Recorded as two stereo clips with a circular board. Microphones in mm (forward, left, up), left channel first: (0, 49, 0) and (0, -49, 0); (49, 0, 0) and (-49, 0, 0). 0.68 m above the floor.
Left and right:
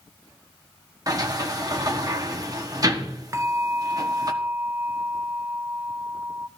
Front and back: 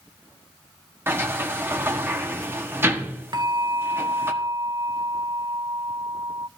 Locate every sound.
1.1 s a sliding door: 120° right, 1.2 m
3.3 s a bell: 145° right, 0.6 m